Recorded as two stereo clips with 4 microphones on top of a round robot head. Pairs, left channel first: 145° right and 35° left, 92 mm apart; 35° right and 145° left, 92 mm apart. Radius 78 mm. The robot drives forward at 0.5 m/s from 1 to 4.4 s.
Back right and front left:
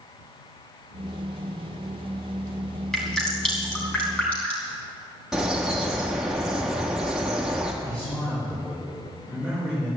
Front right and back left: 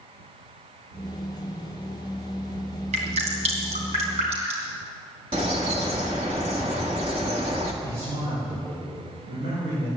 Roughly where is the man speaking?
Behind left.